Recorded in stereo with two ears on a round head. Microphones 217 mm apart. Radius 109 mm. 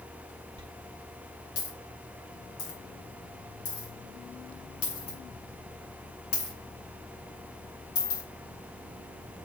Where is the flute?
I don't hear a flute.